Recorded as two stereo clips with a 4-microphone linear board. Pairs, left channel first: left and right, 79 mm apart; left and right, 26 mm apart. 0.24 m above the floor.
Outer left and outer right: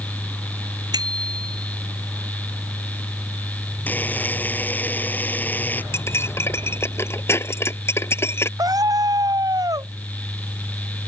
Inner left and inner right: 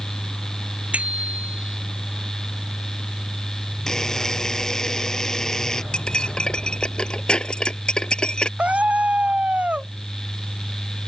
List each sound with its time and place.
0.9 s a bicycle bell: 55° right (ahead or behind)
3.9 s a buzzer: 20° left (ahead or behind)
5.9 s cutlery clinking: 35° left (ahead or behind)
8.6 s a scream: 55° right (ahead or behind)